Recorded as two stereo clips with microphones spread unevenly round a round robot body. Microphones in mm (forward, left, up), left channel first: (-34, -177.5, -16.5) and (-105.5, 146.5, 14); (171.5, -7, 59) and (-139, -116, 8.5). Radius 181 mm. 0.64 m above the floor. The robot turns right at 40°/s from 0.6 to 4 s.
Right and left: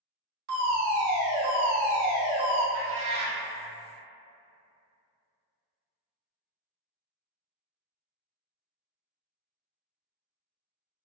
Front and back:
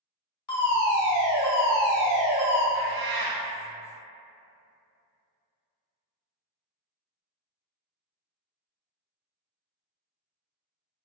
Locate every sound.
0.5 s a fire alarm: 70° left, 1.8 m; by 2.6 s 150° left, 1.8 m
2.7 s a cat meowing: 135° left, 0.7 m; by 3.4 s 160° left, 0.7 m